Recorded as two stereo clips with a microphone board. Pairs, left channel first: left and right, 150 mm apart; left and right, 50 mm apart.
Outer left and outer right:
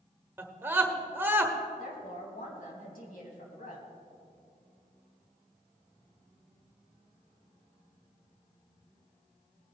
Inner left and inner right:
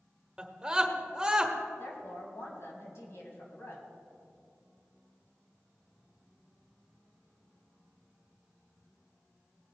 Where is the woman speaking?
65° left (ahead or behind), 2.5 m.